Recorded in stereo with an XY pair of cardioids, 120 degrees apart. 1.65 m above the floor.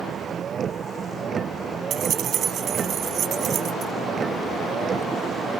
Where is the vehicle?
35° right; by 5.6 s 25° right.